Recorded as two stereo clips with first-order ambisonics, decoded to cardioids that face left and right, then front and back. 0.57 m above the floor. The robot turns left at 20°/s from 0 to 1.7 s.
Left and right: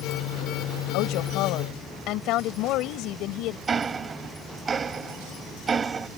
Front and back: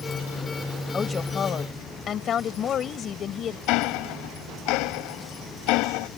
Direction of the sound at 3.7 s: 20° right.